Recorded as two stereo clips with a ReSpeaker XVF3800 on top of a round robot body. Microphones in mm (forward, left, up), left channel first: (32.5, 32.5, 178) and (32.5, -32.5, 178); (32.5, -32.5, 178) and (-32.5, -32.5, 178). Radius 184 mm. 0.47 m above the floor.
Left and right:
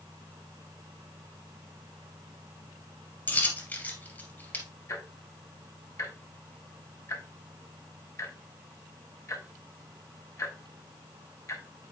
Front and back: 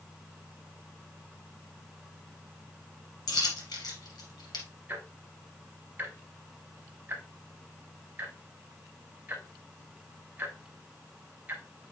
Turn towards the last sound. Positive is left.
turn(degrees=120)